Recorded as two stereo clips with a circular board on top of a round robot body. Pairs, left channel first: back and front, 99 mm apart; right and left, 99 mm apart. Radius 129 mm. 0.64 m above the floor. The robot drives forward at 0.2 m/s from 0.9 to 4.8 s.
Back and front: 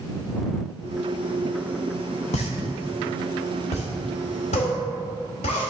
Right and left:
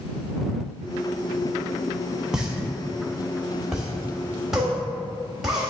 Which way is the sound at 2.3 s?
175° left.